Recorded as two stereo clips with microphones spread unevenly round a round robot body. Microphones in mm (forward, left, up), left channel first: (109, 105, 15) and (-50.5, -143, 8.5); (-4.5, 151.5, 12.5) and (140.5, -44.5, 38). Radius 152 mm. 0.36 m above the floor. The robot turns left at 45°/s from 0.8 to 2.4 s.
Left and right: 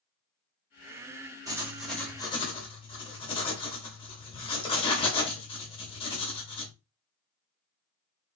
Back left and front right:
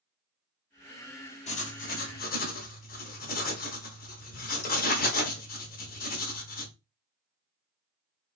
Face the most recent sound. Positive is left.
turn(degrees=125)